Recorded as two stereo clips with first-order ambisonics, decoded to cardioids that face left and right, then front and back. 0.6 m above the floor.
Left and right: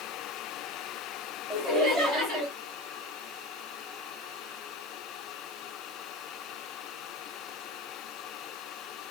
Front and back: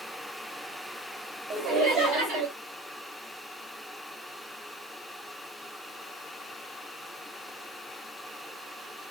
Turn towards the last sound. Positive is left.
turn(degrees=-160)